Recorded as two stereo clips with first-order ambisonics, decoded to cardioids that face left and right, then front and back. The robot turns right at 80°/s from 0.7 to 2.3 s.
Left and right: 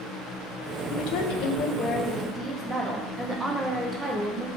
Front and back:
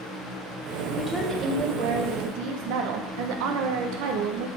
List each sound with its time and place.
0.9 s a woman speaking: 75° left, 1.1 m; by 4.5 s 175° right, 1.1 m